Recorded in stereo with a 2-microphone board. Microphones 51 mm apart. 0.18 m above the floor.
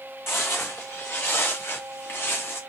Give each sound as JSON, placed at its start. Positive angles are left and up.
{"t": 0.3, "sound": "footsteps", "side_deg": 55, "distance_m": 0.8}